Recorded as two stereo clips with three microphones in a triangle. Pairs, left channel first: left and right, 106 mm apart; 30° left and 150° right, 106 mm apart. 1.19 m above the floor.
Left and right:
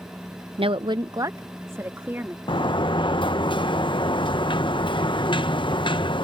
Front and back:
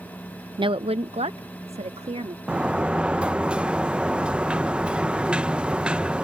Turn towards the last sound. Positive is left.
turn(degrees=130)